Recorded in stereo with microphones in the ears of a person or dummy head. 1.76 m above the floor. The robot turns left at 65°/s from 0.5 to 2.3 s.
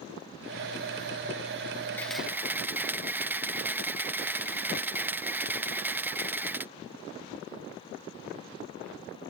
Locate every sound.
2.0 s a camera shutter: 15° left (ahead or behind); by 6.7 s 5° right (ahead or behind)